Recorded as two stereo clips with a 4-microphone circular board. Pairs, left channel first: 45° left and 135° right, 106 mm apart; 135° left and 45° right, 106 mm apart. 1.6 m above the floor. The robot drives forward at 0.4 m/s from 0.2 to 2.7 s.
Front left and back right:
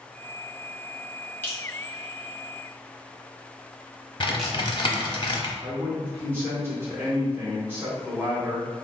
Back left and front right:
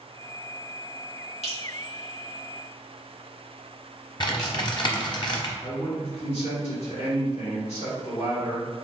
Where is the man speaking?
155° left, 1.7 m.